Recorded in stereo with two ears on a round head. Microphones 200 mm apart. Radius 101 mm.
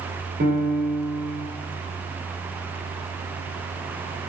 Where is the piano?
45° right (ahead or behind), 2.5 m.